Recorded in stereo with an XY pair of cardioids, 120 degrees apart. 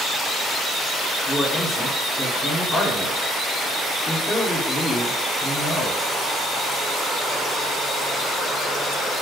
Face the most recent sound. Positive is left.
turn(degrees=10)